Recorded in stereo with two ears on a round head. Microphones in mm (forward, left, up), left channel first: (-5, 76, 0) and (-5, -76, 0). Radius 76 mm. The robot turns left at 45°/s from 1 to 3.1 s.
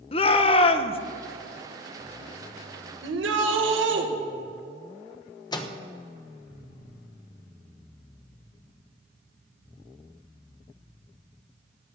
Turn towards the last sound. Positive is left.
turn(degrees=25)  # may be behind; listen again after turning